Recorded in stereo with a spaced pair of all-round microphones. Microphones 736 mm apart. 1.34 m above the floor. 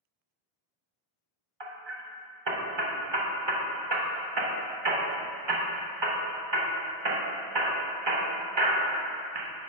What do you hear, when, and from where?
1.6 s hammering: 40° right (ahead or behind), 0.8 m